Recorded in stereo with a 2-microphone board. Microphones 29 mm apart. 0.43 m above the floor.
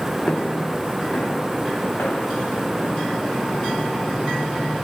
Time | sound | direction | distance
0.3 | footsteps | 50° left (ahead or behind) | 1.1 m